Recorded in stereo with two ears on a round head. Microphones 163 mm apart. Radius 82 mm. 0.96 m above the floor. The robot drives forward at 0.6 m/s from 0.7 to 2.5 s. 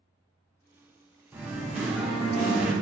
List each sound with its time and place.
1.3 s singing: 10° right (ahead or behind), 0.5 m; by 2.7 s 5° right (ahead or behind), 1.2 m